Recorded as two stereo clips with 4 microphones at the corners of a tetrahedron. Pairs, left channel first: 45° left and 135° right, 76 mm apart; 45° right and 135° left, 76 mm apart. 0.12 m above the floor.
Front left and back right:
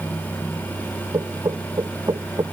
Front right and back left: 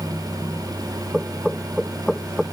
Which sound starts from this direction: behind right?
Knocking, at 1.1 s.